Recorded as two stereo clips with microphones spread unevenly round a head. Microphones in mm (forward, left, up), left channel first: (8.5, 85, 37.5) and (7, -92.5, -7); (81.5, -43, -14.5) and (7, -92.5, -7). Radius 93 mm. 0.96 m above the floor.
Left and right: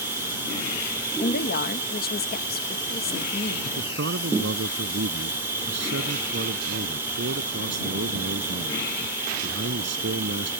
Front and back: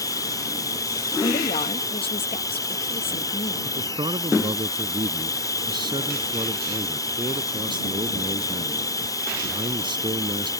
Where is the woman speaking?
50° left.